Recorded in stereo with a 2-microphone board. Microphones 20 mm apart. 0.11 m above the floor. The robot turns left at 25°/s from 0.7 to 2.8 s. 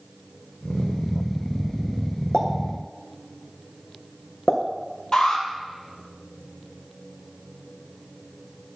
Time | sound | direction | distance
2.3 | a pop | 55° left (ahead or behind) | 2.5 m
5.1 | an alarm | 50° left (ahead or behind) | 2 m